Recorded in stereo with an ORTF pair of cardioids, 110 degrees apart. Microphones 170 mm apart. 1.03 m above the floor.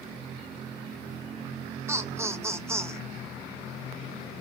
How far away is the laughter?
About 0.9 m.